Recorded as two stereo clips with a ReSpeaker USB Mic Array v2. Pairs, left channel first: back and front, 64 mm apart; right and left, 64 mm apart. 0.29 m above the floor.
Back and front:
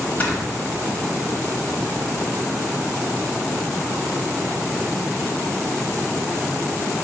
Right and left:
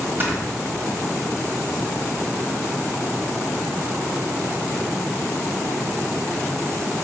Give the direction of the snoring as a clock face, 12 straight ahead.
8 o'clock.